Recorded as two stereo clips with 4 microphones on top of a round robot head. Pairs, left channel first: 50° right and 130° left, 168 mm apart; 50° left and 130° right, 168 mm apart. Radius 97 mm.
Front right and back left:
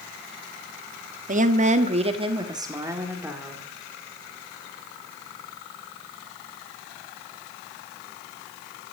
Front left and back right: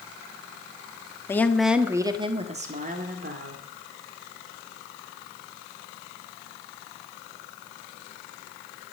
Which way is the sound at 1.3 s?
120° left.